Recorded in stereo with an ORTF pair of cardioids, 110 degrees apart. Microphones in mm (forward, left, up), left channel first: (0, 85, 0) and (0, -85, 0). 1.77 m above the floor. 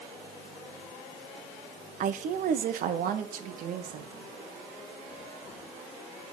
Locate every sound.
2.0 s a woman speaking: 55° right, 0.9 m; by 4.3 s 65° right, 3 m